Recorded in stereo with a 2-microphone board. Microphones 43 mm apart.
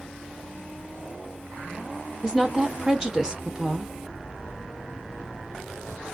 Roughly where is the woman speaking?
Centre.